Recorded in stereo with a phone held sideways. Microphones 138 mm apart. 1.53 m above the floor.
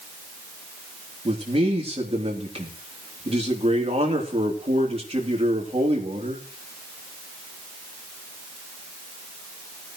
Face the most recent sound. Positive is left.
turn(degrees=-45)  # may be behind; listen again after turning